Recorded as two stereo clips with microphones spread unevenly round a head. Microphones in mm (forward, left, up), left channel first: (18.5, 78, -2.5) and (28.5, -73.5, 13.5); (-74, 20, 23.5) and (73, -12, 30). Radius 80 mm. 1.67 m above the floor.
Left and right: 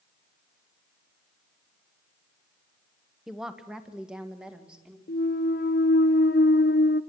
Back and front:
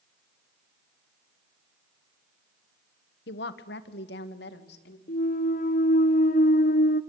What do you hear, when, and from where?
3.3 s a woman speaking: 175° right, 1.4 m; by 5.0 s 170° right, 2.5 m
5.1 s a clunk: 130° left, 0.8 m